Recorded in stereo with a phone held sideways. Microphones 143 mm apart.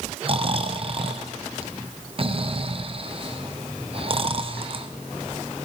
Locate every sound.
0.2 s snoring: 40° right (ahead or behind), 0.8 m